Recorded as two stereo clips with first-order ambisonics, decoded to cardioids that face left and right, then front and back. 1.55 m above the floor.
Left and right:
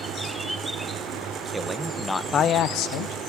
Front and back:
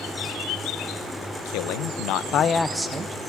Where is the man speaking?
10° right, 1.0 m; by 3.2 s 120° left, 0.8 m.